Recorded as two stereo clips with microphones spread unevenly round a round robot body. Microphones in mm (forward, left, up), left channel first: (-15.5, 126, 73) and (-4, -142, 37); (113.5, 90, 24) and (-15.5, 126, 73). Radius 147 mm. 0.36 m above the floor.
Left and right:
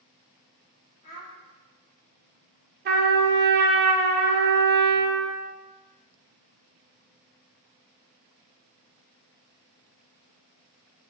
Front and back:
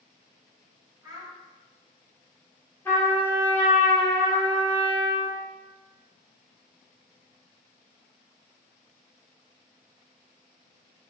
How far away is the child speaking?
About 1.8 m.